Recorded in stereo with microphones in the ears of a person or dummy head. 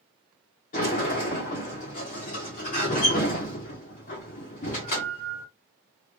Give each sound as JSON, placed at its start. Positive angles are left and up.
{"t": 0.7, "sound": "a sliding door", "side_deg": 30, "distance_m": 1.0}